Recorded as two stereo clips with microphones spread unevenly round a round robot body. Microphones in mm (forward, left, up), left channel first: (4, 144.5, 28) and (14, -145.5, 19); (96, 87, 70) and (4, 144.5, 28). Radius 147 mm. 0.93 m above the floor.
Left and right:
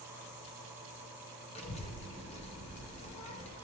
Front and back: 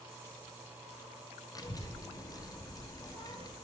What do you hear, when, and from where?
1.6 s a child speaking: 20° left, 0.9 m